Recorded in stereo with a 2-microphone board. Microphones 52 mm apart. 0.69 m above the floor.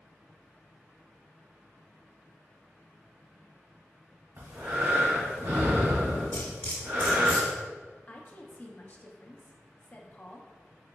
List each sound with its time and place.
4.4 s breathing: 65° right (ahead or behind), 1.6 m
6.3 s cutlery clinking: 50° left (ahead or behind), 1.4 m
8.1 s a woman speaking: 35° left (ahead or behind), 0.5 m